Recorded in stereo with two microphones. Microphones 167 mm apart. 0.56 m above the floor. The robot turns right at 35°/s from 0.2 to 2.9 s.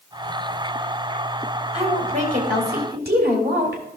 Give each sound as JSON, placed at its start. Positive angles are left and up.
{"t": 1.7, "sound": "a woman speaking", "azimuth_deg": -140, "distance_m": 3.0}